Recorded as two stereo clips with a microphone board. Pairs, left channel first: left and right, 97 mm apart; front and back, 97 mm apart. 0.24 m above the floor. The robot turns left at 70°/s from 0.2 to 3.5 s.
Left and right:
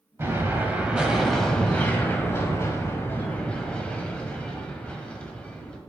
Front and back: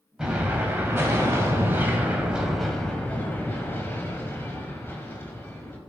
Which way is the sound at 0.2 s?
100° right.